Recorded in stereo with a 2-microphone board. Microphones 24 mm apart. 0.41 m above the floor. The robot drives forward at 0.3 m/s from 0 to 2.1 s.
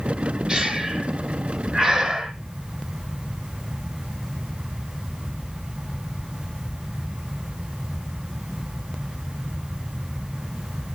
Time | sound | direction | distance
0.5 | breathing | 15° right (ahead or behind) | 2 m